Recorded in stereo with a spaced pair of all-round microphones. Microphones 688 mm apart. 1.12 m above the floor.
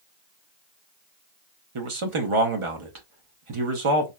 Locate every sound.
1.8 s a man speaking: 50° right (ahead or behind), 0.7 m